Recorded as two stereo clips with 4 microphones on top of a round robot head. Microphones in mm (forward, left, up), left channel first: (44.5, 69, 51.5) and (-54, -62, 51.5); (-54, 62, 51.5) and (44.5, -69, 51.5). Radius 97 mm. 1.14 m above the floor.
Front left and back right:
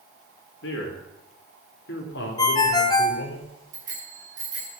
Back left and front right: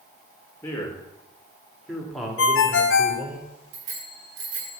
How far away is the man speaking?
About 4 m.